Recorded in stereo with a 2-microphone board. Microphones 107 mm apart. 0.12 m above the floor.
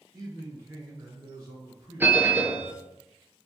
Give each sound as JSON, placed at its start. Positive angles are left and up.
{"t": 0.1, "sound": "a man speaking", "side_deg": -35, "distance_m": 1.2}
{"t": 2.0, "sound": "a bell", "side_deg": -20, "distance_m": 0.5}